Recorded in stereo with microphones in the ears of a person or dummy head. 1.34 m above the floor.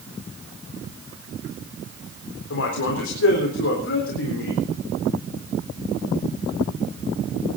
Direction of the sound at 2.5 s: 85° left.